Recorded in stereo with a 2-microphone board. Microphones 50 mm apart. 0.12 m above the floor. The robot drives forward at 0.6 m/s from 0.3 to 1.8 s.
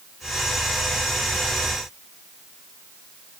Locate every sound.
Only background noise.